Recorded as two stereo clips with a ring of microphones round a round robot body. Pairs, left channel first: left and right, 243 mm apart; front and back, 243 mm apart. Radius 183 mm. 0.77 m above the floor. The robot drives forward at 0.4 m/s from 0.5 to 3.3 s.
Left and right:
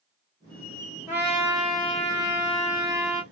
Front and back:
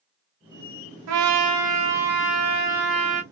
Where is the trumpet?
175° right, 0.6 m; by 3.2 s straight behind, 1.5 m.